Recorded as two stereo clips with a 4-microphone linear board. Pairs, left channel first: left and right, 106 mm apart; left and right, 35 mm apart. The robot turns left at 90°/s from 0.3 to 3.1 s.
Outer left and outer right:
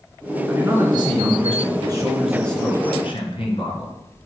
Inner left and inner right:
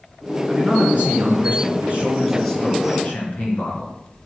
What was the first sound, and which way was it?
A man speaking, 10° right.